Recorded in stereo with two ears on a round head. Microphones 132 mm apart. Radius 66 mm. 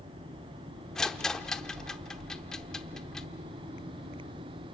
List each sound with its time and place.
0.9 s a rattle: 5° left (ahead or behind), 0.8 m